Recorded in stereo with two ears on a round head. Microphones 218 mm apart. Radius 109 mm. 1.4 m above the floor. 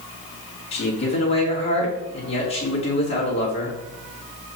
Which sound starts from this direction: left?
A man speaking, at 0.7 s.